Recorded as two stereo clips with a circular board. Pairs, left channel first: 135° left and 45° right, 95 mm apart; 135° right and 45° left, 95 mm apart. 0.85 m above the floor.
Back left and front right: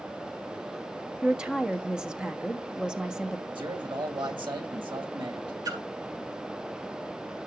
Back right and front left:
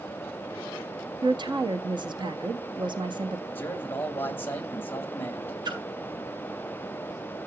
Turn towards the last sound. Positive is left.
turn(degrees=0)